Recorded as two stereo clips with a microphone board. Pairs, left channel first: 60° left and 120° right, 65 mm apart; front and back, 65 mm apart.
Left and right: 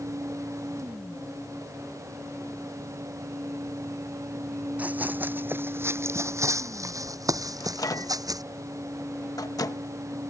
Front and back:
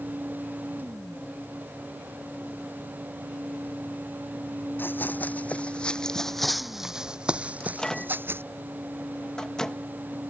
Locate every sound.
4.8 s running footsteps: 55° right; by 8.4 s 130° right
7.6 s a microwave: 80° left